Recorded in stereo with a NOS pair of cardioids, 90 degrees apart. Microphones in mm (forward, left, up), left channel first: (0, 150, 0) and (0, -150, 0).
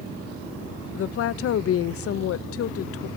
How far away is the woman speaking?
About 0.7 m.